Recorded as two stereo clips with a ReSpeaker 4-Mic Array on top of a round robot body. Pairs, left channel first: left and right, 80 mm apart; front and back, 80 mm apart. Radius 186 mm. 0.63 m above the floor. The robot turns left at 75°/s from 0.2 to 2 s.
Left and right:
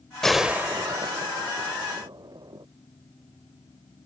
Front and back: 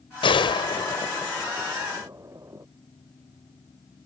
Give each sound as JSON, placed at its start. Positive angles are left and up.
{"t": 0.2, "sound": "a gunshot", "azimuth_deg": 5}